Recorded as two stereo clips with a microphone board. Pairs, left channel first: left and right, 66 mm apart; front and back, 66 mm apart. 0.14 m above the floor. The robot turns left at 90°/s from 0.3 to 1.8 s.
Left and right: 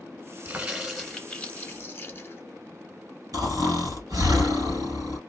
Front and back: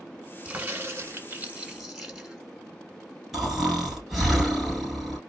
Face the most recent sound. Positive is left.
turn(degrees=-95)